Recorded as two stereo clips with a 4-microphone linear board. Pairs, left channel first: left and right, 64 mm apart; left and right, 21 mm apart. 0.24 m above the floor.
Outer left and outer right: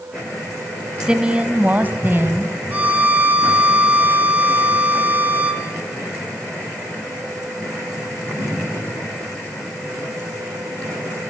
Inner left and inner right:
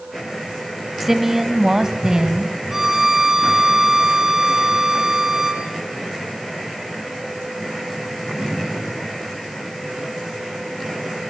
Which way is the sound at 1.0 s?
10° right (ahead or behind).